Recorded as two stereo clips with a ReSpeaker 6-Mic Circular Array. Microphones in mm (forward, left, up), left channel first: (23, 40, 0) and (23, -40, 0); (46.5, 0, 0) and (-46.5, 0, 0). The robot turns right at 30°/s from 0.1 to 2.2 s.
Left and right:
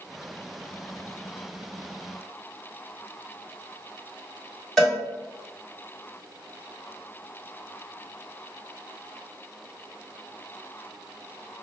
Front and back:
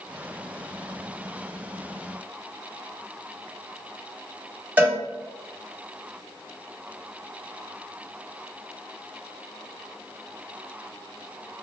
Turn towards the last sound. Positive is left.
turn(degrees=160)